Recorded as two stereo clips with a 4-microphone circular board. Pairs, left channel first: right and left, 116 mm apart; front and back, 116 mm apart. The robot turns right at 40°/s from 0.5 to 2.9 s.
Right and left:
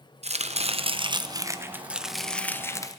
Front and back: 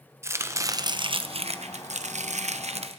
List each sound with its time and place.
0.2 s chopping: 115° left, 0.8 m; by 3.0 s 150° right, 0.8 m